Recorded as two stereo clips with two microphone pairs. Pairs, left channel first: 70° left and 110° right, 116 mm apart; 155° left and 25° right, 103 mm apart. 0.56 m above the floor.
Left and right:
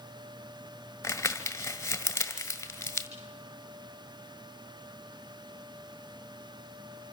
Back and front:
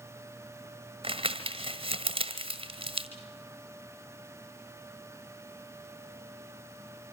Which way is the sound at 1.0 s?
Straight ahead.